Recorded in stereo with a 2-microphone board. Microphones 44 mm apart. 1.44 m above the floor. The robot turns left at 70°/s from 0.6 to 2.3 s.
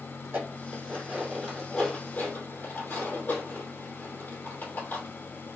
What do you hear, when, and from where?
0.2 s dishes clattering: 65° right (ahead or behind), 3 m; by 5.6 s 50° left (ahead or behind), 3 m